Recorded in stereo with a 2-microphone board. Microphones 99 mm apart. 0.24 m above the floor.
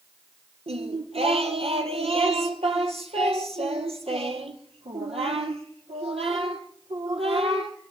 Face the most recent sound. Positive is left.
turn(degrees=-80)